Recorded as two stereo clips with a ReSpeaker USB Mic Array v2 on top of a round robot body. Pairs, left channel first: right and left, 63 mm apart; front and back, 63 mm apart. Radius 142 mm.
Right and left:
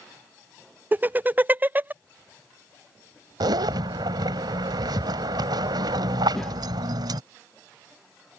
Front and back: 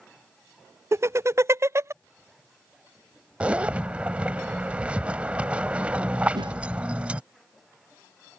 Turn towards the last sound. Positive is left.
turn(degrees=-175)